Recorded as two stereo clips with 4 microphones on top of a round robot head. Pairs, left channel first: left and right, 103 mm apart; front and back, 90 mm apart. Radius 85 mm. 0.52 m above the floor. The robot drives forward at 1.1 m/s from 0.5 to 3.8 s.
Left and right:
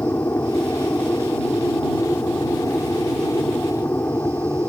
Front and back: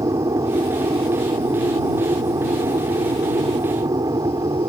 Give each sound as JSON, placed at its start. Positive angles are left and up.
{"t": 0.0, "sound": "an aircraft", "azimuth_deg": 155}